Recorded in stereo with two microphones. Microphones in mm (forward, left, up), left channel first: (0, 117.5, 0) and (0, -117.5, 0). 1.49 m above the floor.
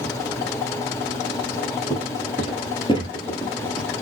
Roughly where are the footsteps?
Left.